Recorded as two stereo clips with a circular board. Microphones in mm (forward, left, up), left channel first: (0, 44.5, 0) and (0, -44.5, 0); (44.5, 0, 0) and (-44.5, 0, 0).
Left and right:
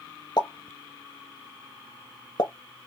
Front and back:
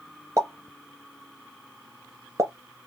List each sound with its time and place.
0.4 s a pop: 125° left, 0.8 m